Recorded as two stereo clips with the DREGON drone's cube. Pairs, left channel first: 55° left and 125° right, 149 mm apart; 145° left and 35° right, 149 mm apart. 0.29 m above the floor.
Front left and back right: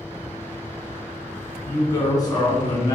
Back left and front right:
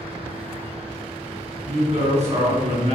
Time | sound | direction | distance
1.6 | a woman speaking | straight ahead | 1.9 m